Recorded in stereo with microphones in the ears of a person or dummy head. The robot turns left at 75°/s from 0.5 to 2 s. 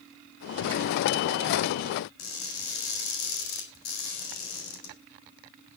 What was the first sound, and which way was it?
Crushing, 55° left (ahead or behind).